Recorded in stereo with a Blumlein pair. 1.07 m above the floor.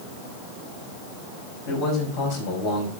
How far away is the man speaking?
About 5 m.